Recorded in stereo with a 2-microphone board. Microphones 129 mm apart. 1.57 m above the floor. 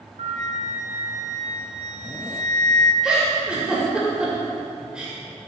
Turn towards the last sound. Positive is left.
turn(degrees=-5)  # may be behind; listen again after turning